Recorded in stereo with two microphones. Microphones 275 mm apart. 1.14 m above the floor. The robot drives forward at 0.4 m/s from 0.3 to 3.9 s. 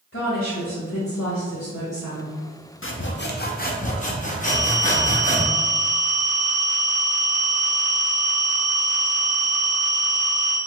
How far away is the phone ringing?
About 1.1 m.